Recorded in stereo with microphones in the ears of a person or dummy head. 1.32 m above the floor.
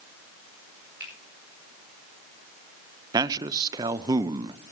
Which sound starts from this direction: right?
A man speaking, at 3.1 s.